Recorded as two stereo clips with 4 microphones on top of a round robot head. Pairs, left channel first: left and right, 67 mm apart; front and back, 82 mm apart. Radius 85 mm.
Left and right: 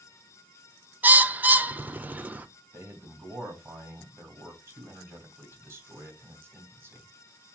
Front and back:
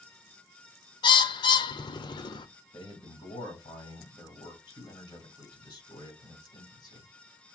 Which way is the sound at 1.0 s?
25° right.